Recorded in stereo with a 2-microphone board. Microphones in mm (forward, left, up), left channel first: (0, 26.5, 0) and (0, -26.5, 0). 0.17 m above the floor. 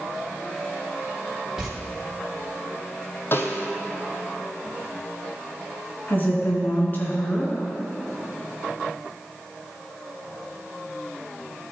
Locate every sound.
1.6 s footsteps: 10° right (ahead or behind), 3 m
3.3 s a snare drum: 50° left (ahead or behind), 1.0 m
6.1 s a woman speaking: 40° left (ahead or behind), 2 m